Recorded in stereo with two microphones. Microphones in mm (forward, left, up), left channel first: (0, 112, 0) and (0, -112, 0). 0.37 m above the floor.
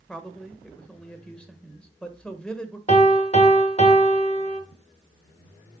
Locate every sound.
0.1 s a man speaking: 5° left (ahead or behind), 1.2 m
2.9 s a piano: 30° left (ahead or behind), 1.0 m